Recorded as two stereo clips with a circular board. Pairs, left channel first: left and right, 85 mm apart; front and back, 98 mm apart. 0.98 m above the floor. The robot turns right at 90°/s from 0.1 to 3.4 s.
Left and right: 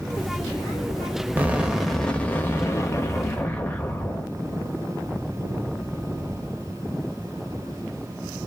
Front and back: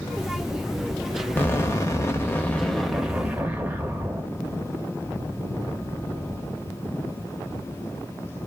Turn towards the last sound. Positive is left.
turn(degrees=135)